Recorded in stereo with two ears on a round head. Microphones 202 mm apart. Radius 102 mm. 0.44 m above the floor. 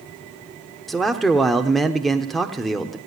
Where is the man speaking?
Centre (ahead or behind), 0.9 m.